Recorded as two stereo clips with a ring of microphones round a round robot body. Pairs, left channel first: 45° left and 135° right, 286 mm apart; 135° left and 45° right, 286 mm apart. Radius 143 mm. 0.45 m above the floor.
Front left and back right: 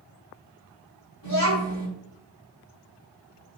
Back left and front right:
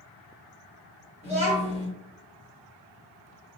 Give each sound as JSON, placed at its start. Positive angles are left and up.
{"t": 1.2, "sound": "a child speaking", "azimuth_deg": 40, "distance_m": 1.9}